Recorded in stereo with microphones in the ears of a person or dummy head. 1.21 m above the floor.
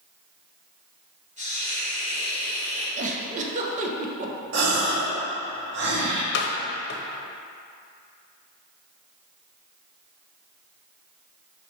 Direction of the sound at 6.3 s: 60° left (ahead or behind).